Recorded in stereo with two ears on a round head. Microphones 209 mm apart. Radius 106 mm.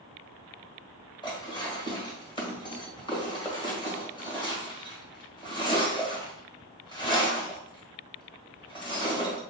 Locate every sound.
1.2 s dishes clattering: 20° left (ahead or behind), 1.7 m